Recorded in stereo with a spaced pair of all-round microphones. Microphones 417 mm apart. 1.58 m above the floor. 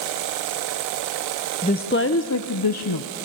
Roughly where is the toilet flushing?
I don't hear a toilet flushing.